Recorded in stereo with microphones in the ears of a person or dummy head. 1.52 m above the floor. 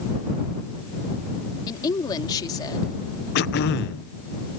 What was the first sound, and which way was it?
A woman speaking, 20° left (ahead or behind).